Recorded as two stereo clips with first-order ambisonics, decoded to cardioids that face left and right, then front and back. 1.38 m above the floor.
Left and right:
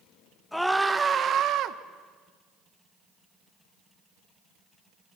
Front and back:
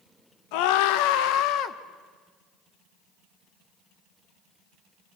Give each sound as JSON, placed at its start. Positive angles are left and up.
{"t": 0.5, "sound": "a scream", "azimuth_deg": 5, "distance_m": 1.8}